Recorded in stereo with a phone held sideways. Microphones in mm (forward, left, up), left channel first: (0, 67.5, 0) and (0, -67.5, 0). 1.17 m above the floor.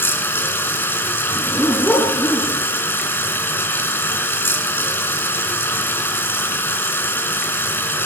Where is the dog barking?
10° left (ahead or behind), 4 m.